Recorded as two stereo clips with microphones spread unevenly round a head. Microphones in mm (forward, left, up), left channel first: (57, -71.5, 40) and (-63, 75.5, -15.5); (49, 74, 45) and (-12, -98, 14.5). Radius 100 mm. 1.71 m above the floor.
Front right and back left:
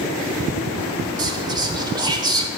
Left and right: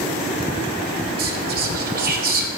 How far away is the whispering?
About 0.8 m.